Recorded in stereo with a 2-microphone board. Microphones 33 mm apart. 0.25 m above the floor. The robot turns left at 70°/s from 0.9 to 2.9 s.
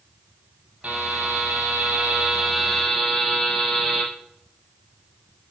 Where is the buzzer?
45° right, 7 m; by 4.0 s 175° left, 7 m.